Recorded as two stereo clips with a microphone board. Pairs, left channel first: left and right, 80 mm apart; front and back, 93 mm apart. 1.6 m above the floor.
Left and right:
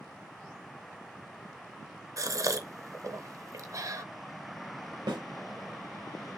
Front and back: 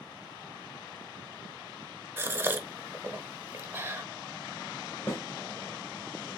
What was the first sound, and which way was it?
A gasp, 120° right.